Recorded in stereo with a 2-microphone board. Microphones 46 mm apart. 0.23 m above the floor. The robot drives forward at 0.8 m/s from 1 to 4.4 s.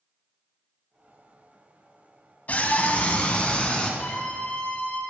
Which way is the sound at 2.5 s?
35° left (ahead or behind).